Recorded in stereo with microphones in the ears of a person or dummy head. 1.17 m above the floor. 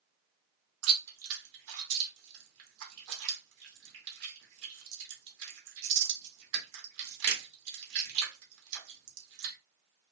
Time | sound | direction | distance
0.8 | chewing | 75° right (ahead or behind) | 1.5 m